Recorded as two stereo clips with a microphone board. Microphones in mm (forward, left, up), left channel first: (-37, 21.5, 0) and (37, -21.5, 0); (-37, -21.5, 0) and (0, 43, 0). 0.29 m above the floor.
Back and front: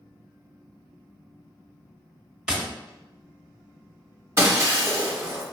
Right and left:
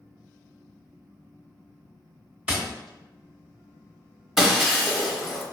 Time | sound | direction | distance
2.5 | tapping | 30° left | 0.7 m
4.4 | breaking glass | 20° right | 0.7 m